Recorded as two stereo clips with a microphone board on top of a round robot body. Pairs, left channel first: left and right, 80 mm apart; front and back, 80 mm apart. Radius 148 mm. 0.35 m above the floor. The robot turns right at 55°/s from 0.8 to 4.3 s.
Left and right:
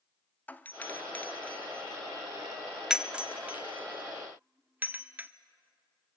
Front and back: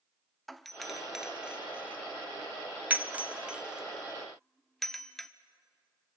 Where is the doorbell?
85° left, 1.2 m; by 5.3 s 80° right, 1.2 m.